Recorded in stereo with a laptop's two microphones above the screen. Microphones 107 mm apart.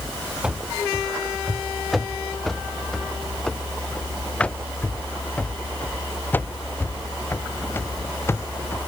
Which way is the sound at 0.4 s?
10° right (ahead or behind).